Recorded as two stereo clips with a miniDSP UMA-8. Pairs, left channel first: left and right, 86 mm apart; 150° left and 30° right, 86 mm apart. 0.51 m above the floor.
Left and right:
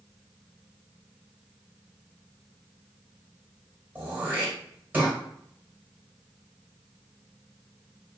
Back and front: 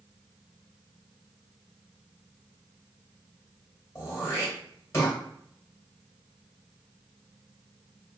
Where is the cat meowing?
No cat meowing in this recording.